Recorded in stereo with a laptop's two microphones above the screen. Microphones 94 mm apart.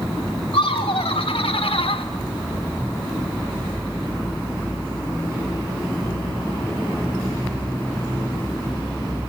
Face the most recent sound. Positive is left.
turn(degrees=75)  # may be behind; listen again after turning